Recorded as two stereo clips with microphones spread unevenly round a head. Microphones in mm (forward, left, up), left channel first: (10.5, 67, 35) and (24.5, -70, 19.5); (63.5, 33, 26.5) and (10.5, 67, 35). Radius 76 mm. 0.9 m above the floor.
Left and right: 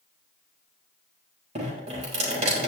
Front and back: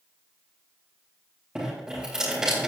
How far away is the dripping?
About 4 m.